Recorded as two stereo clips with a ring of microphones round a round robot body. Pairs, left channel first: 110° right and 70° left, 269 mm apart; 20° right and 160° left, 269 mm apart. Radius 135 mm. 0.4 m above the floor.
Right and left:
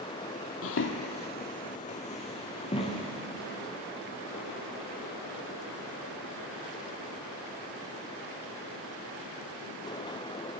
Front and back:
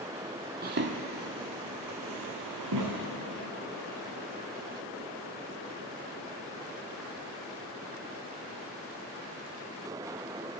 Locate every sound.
0.6 s footsteps: 150° right, 0.7 m; by 3.1 s 175° left, 2 m